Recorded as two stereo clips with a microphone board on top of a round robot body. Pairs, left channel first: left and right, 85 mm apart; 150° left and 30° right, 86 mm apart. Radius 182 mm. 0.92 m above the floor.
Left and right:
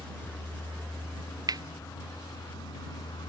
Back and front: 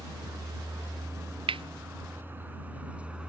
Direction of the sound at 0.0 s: 15° left.